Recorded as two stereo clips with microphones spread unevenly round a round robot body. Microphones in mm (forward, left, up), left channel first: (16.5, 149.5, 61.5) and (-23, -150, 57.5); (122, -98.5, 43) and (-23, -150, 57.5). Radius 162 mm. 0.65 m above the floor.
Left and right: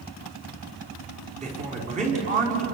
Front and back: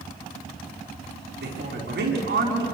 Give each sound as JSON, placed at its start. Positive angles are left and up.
{"t": 1.4, "sound": "a man speaking", "azimuth_deg": -165, "distance_m": 6.0}